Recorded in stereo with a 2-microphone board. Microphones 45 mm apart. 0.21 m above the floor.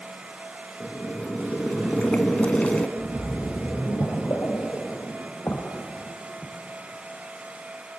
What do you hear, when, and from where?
0.8 s boiling: 30° left (ahead or behind), 0.5 m
3.0 s a splash: 55° left (ahead or behind), 3 m